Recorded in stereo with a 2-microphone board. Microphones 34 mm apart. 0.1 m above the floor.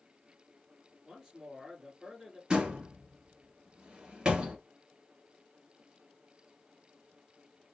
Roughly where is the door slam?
Right.